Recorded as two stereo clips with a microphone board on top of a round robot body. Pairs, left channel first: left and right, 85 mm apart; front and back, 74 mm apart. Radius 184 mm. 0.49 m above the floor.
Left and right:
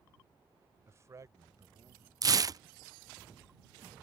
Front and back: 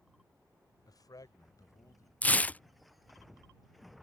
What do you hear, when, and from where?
0.9 s a man speaking: 30° right; by 2.1 s 45° right
2.2 s tearing paper: 65° right